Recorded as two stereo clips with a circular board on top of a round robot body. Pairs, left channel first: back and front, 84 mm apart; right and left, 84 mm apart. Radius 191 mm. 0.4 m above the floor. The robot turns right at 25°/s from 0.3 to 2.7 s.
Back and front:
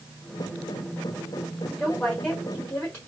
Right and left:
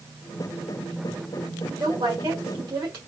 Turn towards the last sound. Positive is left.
turn(degrees=115)